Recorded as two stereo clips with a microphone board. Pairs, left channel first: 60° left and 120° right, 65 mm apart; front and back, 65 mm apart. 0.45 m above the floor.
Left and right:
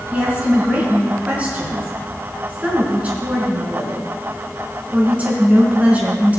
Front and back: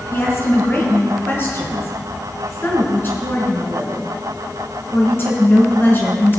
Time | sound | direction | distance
0.1 | a woman speaking | 55° right | 4.5 m